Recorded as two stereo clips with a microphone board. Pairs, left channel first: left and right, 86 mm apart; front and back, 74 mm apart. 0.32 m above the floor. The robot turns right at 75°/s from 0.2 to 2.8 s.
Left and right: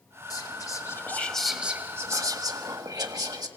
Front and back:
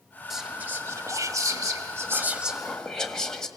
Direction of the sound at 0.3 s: 95° left.